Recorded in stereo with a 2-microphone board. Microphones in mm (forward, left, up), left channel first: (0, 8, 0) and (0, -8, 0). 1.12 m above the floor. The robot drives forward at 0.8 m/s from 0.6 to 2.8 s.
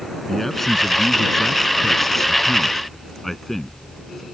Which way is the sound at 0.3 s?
10° left (ahead or behind).